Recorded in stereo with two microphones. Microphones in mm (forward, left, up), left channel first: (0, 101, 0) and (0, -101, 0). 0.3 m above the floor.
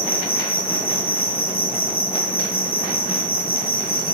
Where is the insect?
50° left (ahead or behind), 7 m.